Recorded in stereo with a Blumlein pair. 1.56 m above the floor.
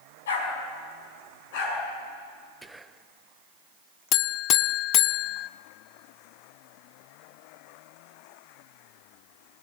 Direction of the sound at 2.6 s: 10° right.